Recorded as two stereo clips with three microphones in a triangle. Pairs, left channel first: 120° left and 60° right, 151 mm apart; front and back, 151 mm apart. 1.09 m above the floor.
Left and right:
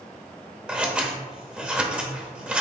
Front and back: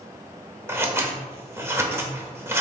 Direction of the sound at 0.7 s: 135° right.